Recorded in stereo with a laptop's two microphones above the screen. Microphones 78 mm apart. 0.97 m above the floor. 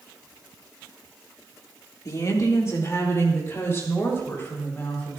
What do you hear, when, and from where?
2.0 s a woman speaking: 50° left (ahead or behind), 1.8 m; by 5.2 s 30° left (ahead or behind), 4.5 m